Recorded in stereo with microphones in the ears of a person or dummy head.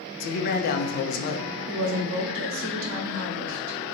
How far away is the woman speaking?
About 0.9 m.